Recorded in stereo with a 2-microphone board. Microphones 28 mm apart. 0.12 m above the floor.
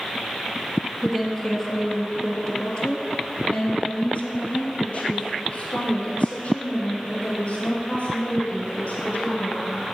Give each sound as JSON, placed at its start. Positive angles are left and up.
{"t": 1.0, "sound": "a woman speaking", "side_deg": 10, "distance_m": 2.0}